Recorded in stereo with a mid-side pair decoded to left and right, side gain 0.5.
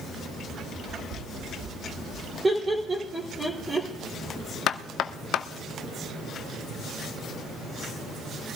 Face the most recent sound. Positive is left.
turn(degrees=65)